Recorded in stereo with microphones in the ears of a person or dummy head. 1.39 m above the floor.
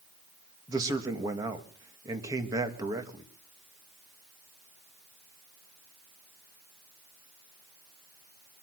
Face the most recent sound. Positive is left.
turn(degrees=-25)  # may be behind; listen again after turning